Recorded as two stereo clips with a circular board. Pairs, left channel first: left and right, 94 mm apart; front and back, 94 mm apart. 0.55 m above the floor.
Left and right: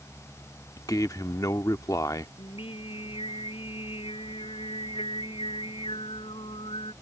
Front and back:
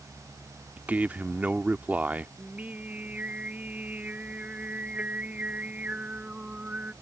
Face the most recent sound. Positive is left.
turn(degrees=105)